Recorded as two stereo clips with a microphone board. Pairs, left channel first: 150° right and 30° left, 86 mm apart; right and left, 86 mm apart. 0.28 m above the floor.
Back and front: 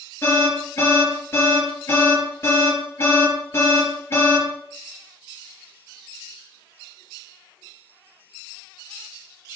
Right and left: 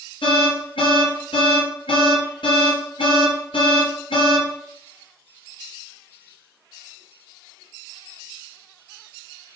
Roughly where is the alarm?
Right.